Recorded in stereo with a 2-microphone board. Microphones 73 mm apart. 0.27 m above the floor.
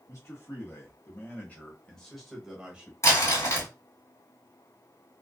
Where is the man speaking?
45° left (ahead or behind), 1.7 m; by 2.9 s 15° right (ahead or behind), 1.1 m.